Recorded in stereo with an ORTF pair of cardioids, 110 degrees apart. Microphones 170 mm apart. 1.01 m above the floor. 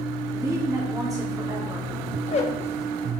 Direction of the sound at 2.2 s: 40° left.